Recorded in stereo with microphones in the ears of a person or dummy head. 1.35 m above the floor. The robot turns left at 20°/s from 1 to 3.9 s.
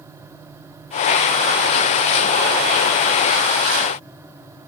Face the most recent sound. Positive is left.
No sound to turn to.